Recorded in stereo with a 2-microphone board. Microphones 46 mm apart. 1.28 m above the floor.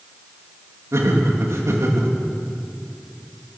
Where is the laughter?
80° right, 2.5 m.